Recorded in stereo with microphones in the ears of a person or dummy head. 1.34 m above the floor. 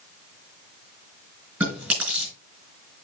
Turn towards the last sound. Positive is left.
turn(degrees=-10)  # may be behind; listen again after turning